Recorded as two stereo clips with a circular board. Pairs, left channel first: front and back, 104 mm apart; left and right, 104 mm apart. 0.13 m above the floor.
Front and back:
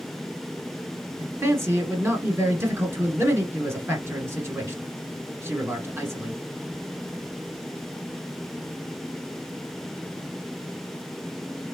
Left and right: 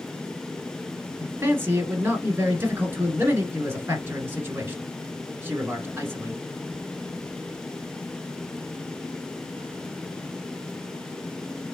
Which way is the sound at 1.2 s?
135° right.